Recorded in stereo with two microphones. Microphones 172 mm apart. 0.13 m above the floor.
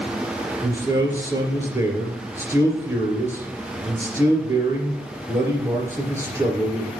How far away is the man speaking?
About 2.5 m.